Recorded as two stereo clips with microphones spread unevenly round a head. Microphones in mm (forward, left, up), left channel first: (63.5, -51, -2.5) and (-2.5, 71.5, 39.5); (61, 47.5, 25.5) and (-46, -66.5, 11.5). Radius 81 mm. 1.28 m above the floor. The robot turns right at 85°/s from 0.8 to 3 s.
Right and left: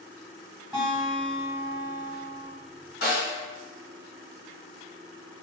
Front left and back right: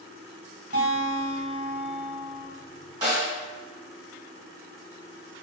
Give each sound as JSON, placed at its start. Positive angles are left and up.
{"t": 0.7, "sound": "a guitar", "azimuth_deg": -170, "distance_m": 1.5}
{"t": 3.0, "sound": "a snare drum", "azimuth_deg": -65, "distance_m": 1.5}